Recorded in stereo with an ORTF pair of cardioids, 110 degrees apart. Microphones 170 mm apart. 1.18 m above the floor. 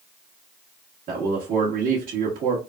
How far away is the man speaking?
About 1.5 m.